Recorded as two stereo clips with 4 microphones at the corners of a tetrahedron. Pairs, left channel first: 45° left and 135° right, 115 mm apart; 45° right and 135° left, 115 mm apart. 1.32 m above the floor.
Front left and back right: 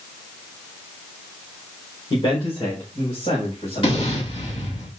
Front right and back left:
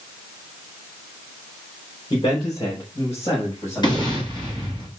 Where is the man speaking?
Straight ahead, 4.5 m; by 4.1 s 15° left, 7 m.